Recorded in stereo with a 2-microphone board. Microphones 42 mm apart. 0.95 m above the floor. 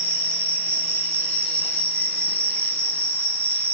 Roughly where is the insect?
Right.